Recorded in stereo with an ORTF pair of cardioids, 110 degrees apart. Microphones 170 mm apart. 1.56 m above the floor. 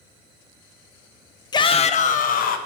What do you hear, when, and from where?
1.5 s a shout: 25° left, 1.0 m; by 2.6 s 65° left, 1.9 m